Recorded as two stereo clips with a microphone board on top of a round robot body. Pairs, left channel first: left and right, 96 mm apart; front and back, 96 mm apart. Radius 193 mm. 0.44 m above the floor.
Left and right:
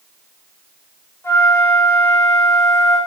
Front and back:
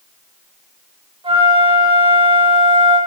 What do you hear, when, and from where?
1.2 s a flute: 155° left, 6.5 m